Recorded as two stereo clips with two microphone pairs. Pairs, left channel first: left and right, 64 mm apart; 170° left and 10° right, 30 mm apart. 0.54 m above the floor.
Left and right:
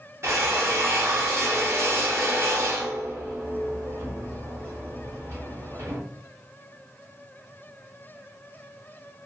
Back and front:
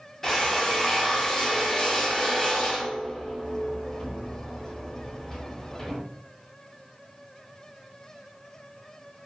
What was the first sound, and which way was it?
A drill, 120° right.